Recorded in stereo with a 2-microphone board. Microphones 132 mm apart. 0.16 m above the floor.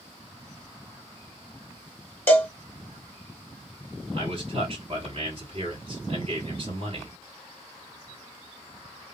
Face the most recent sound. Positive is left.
turn(degrees=-45)  # may be behind; listen again after turning